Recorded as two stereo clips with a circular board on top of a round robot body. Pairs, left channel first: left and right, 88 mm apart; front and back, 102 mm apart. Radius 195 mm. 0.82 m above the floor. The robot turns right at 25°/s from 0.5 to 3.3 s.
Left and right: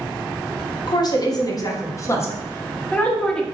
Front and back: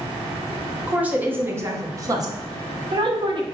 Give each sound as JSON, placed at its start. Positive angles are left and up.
{"t": 0.9, "sound": "a woman speaking", "azimuth_deg": 105, "distance_m": 0.9}